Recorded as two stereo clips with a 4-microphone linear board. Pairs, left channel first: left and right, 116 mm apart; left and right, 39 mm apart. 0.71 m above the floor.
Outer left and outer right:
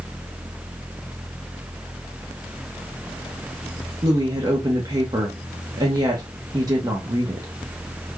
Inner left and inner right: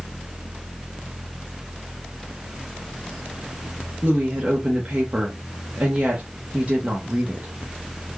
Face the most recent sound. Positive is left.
turn(degrees=-35)  # may be behind; listen again after turning